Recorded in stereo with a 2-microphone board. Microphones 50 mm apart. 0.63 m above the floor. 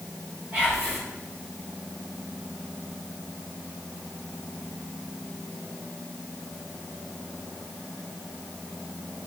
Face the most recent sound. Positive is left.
turn(degrees=-35)  # may be behind; listen again after turning